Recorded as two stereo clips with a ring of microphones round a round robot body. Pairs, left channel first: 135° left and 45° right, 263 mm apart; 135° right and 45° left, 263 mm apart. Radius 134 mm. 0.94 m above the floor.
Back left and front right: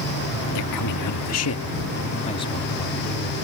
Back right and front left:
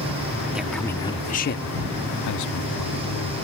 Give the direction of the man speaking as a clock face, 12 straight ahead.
8 o'clock.